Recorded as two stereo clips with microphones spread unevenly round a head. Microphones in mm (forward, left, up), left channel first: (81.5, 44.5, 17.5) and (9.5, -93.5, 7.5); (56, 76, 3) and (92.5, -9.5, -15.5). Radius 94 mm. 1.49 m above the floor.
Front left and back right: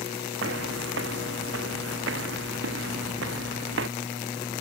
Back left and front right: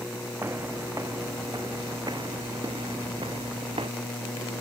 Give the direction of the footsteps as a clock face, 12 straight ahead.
5 o'clock.